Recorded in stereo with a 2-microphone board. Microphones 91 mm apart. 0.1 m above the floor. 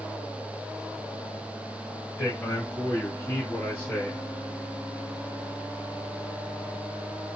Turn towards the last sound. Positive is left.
turn(degrees=25)  # may be behind; listen again after turning